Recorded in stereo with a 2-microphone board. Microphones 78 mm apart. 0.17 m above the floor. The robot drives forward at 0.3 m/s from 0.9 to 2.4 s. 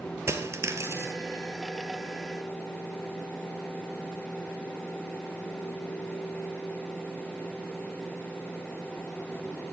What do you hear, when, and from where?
0.3 s a dropped coin: 35° right (ahead or behind), 1.3 m